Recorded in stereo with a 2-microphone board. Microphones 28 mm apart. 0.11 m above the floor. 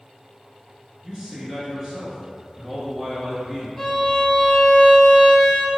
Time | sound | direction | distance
1.0 | a man speaking | 25° right (ahead or behind) | 1.8 m
3.8 | a violin | 15° left (ahead or behind) | 0.8 m